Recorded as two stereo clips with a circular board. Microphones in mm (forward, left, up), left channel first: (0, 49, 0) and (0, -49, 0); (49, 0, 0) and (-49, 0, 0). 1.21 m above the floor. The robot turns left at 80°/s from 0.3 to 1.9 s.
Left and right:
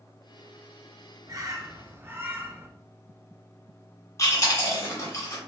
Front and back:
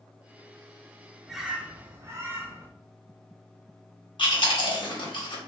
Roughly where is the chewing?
Ahead left.